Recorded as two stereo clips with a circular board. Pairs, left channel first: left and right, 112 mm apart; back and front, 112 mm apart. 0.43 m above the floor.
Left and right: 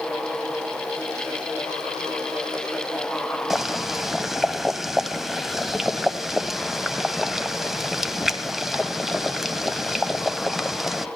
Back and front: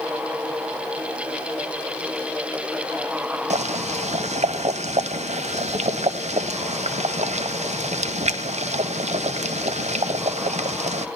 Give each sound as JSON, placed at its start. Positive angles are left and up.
{"t": 3.5, "sound": "boiling", "azimuth_deg": 0, "distance_m": 0.7}